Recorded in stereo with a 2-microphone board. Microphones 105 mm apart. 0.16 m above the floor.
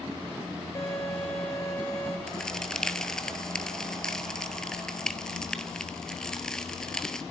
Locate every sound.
0.8 s a violin: 25° left (ahead or behind), 7 m
2.3 s a crack: 5° left (ahead or behind), 1.1 m